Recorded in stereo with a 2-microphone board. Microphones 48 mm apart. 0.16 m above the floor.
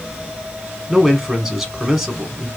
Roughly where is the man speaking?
Centre.